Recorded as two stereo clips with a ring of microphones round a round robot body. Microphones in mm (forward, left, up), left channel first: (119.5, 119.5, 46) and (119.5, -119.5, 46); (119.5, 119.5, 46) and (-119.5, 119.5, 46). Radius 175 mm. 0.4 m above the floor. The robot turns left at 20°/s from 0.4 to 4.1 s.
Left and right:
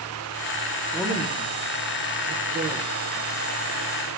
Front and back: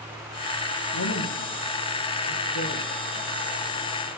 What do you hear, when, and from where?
0.9 s a woman speaking: 15° right, 6 m; by 2.9 s 55° right, 6 m